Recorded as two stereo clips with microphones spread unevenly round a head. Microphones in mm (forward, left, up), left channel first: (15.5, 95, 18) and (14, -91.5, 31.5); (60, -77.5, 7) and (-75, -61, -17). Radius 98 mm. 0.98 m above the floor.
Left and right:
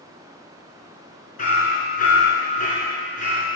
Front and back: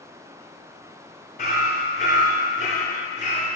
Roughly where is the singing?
I don't hear singing.